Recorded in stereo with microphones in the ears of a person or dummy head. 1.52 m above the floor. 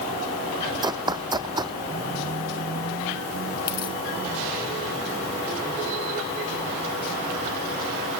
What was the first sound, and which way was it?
Running footsteps, 20° right (ahead or behind).